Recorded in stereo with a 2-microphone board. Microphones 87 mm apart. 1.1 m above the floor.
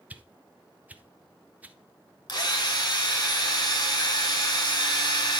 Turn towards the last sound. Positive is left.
turn(degrees=50)  # may be behind; listen again after turning